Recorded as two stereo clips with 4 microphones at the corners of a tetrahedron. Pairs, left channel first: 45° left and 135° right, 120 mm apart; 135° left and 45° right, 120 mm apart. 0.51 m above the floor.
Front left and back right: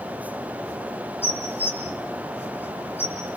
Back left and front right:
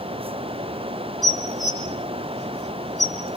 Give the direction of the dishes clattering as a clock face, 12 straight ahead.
1 o'clock.